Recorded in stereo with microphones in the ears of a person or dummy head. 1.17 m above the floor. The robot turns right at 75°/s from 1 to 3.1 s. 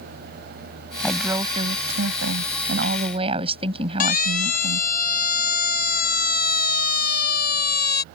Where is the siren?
50° left (ahead or behind); by 8.0 s 60° left (ahead or behind).